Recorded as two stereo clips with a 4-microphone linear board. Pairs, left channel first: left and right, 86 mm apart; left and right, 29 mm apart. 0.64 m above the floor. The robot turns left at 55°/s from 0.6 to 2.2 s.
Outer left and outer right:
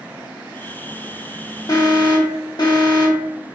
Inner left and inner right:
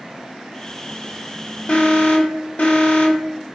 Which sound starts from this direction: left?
An alarm, at 1.7 s.